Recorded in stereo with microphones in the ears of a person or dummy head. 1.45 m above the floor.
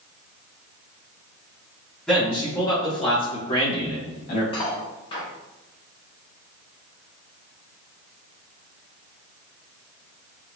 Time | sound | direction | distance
2.1 | a man speaking | 5° left (ahead or behind) | 1.4 m
4.5 | cutlery clinking | 30° left (ahead or behind) | 1.6 m